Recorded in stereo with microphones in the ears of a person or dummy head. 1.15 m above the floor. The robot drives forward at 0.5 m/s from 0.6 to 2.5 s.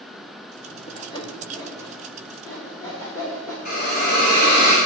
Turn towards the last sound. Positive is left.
turn(degrees=50)  # may be behind; listen again after turning